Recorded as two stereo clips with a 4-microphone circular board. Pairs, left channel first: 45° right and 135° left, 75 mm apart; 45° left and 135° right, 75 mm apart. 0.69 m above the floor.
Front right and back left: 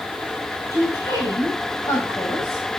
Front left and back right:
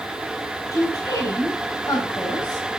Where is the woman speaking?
5° left, 4.5 m.